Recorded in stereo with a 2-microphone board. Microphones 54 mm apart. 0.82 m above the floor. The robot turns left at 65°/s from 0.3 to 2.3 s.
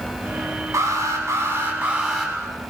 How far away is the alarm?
About 7 m.